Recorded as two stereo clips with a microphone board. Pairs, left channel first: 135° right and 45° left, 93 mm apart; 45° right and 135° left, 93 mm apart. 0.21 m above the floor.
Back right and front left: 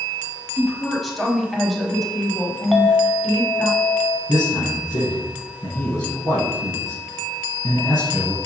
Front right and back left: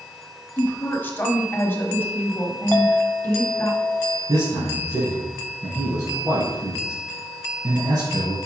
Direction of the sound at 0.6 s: 50° right.